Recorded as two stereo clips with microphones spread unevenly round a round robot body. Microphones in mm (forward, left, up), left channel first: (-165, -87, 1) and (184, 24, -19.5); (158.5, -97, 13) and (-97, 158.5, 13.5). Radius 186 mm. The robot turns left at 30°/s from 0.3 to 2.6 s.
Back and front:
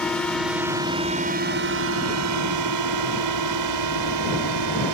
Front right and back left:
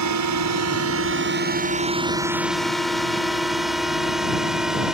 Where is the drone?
110° left; by 5.0 s 45° left.